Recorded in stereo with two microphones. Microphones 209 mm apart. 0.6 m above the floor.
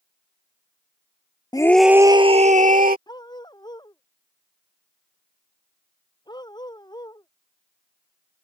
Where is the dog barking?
20° left (ahead or behind).